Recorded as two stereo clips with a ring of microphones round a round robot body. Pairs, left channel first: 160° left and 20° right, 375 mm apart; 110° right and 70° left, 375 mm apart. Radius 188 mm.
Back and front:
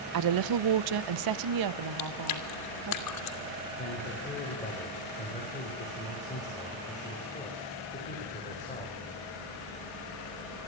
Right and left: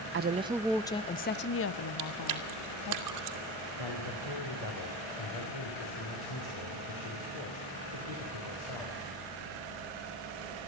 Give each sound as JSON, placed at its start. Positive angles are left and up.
{"t": 0.1, "sound": "a woman speaking", "azimuth_deg": 15, "distance_m": 0.6}
{"t": 2.0, "sound": "chewing", "azimuth_deg": 110, "distance_m": 2.0}
{"t": 3.8, "sound": "a man speaking", "azimuth_deg": -130, "distance_m": 4.0}